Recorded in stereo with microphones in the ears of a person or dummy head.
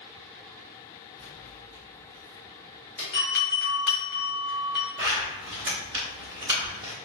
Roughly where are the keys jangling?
Centre.